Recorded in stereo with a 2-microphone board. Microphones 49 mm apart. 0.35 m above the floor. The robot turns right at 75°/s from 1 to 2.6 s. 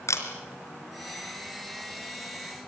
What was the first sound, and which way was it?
A camera shutter, 80° left.